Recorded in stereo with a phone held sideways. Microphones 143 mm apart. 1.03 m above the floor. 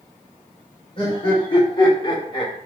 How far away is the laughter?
About 3.5 m.